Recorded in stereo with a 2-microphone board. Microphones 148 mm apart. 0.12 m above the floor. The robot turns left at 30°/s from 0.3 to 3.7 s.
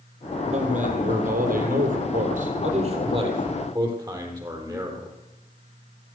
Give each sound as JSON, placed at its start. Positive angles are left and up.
{"t": 0.5, "sound": "a man speaking", "azimuth_deg": -55, "distance_m": 4.0}